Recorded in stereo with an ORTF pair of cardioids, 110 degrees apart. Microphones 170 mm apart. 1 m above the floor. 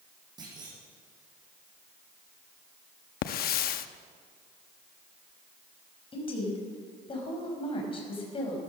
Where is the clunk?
25° right, 7.5 m.